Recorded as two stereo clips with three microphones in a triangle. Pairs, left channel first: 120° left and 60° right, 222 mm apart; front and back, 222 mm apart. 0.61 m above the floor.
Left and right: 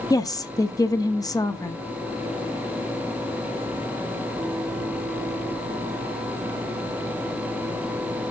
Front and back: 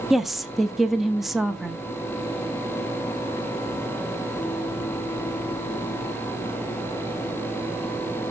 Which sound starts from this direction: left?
A woman speaking, at 0.1 s.